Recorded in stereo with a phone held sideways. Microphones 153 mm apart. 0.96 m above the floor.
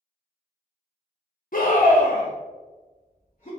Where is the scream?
65° left (ahead or behind), 0.8 m; by 3.5 s 55° left (ahead or behind), 1.8 m.